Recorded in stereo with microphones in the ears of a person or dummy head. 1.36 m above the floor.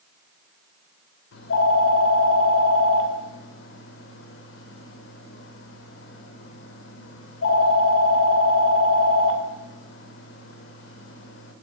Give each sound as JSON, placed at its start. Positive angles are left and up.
{"t": 1.3, "sound": "a phone ringing", "side_deg": 75, "distance_m": 2.5}